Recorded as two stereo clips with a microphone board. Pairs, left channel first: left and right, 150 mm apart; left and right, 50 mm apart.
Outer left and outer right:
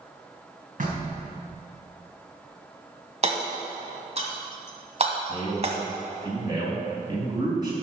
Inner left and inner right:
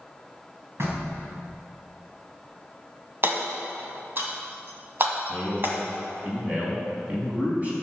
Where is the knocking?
60° right (ahead or behind), 3 m.